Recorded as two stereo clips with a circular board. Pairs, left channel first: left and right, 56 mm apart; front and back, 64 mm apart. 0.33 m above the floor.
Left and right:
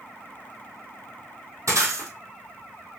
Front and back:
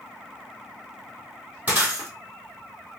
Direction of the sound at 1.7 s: 115° right.